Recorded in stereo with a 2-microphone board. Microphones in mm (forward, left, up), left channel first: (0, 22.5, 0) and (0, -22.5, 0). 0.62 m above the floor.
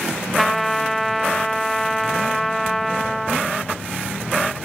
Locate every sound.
0.4 s a trumpet: 5° left (ahead or behind), 0.5 m